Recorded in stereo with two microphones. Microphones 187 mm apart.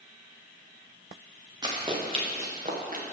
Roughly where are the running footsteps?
Right.